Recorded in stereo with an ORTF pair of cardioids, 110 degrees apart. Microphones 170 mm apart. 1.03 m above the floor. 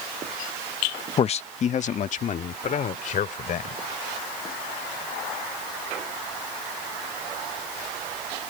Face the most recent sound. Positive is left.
turn(degrees=50)